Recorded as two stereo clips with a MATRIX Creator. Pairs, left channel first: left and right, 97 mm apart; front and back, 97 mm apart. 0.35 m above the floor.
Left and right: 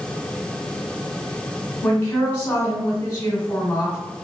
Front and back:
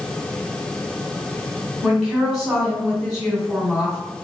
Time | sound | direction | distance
1.8 | a woman speaking | 80° left | 1.5 m